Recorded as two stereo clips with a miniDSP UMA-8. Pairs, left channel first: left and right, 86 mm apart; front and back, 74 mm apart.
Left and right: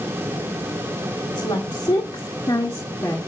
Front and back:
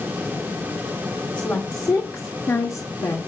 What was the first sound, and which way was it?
A woman speaking, 65° left.